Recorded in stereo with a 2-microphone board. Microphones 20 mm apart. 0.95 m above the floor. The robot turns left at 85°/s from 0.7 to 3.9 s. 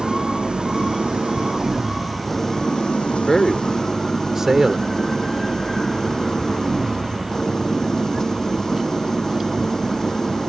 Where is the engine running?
65° right; by 10.5 s 25° left.